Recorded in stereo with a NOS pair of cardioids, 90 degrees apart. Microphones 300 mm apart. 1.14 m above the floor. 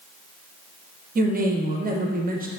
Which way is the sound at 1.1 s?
30° right.